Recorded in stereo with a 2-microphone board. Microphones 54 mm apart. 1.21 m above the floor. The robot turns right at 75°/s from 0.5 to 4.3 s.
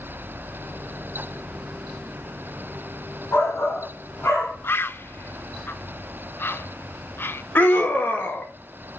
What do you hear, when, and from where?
3.3 s a shout: 60° left, 3.5 m; by 4.5 s 130° left, 3.5 m
4.6 s a bird: 45° left (ahead or behind), 0.5 m
7.5 s a scream: 40° left (ahead or behind), 2.0 m